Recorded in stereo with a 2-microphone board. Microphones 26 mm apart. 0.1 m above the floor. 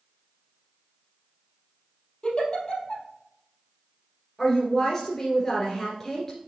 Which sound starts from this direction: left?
A giggle, at 2.2 s.